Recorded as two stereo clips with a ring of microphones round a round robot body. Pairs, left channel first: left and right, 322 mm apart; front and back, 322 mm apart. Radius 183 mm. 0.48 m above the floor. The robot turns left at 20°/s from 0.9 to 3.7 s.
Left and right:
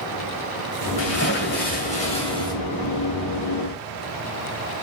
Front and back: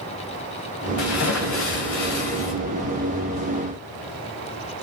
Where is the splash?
45° left, 2 m; by 2.5 s 10° left, 2 m.